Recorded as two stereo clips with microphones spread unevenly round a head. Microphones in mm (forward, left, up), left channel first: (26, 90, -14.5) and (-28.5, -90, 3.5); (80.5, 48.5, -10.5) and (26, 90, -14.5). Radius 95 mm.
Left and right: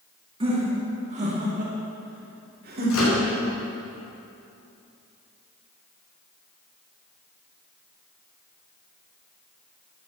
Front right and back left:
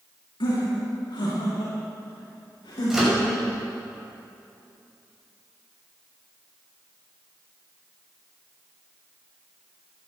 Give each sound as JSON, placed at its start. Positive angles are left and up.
{"t": 0.4, "sound": "laughter", "azimuth_deg": -45, "distance_m": 2.0}
{"t": 2.9, "sound": "a microwave", "azimuth_deg": 60, "distance_m": 6.0}